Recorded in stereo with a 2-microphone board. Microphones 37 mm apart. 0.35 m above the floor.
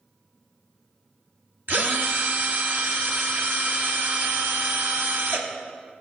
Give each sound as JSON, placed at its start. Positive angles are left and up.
{"t": 1.7, "sound": "a drill", "side_deg": -65, "distance_m": 1.1}